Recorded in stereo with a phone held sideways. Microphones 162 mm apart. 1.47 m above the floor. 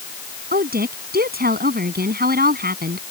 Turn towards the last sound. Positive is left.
turn(degrees=-65)  # may be behind; listen again after turning